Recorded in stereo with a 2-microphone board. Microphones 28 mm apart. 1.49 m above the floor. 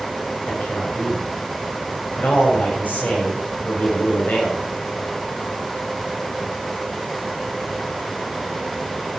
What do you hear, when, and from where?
0.5 s a man speaking: 75° left (ahead or behind), 7.5 m